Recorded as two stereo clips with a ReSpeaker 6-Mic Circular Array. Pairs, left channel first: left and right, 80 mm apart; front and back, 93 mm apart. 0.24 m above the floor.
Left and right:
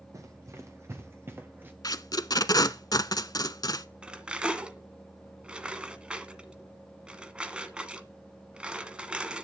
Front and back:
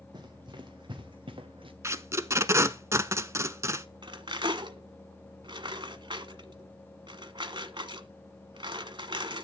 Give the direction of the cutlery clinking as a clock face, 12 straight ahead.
5 o'clock.